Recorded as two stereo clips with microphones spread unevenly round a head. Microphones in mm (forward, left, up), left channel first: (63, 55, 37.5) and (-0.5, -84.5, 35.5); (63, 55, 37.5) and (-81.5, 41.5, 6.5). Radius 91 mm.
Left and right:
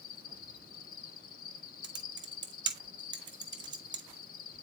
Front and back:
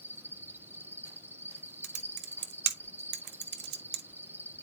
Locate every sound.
0.0 s an insect: 110° left, 1.2 m
1.8 s typing on a keyboard: straight behind, 1.0 m